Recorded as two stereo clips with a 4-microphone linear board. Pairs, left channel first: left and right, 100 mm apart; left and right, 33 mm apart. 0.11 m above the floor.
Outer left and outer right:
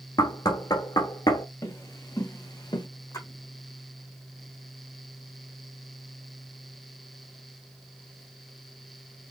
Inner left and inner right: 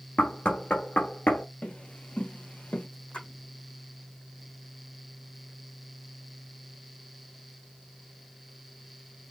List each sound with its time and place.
0.2 s knocking: 40° left (ahead or behind), 1.5 m
1.6 s footsteps: 30° left (ahead or behind), 3 m; by 2.9 s 45° left (ahead or behind), 2.0 m
3.1 s a splash: 35° left (ahead or behind), 3.5 m